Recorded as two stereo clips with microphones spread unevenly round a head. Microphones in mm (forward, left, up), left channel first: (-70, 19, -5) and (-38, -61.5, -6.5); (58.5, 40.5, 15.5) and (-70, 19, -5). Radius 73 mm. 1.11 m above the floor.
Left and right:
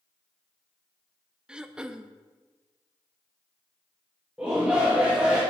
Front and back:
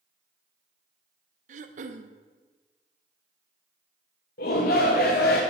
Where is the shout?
15° left, 1.1 m.